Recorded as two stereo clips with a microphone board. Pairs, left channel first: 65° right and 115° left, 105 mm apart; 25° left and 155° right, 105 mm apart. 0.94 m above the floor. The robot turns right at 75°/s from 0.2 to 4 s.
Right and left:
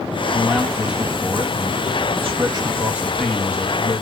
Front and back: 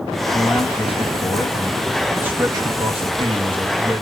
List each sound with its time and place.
0.3 s a man speaking: 10° right, 1.5 m; by 4.0 s 95° right, 1.5 m